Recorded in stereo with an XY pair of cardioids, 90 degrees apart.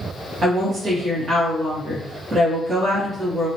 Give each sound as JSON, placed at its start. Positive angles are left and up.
{"t": 0.4, "sound": "a woman speaking", "azimuth_deg": -55, "distance_m": 1.5}